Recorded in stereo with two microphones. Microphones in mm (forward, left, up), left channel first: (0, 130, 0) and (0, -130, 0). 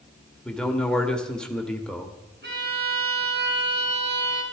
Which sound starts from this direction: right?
A violin, at 2.4 s.